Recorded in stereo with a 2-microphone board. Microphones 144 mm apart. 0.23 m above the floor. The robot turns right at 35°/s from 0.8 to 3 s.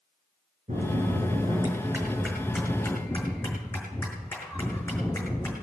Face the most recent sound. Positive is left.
turn(degrees=15)